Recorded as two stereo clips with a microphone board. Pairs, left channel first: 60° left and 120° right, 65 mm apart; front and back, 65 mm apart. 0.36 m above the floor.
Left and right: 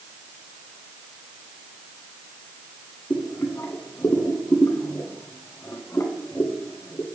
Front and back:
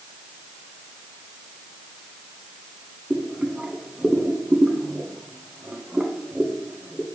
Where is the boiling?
105° left, 0.7 m.